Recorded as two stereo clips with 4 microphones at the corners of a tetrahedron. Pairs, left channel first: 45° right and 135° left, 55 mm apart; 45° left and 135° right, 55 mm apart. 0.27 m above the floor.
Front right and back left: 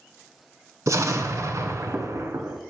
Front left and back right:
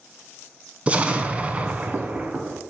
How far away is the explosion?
About 0.5 m.